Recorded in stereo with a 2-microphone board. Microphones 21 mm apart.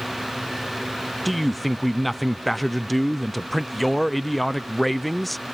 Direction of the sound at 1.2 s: 10° left (ahead or behind).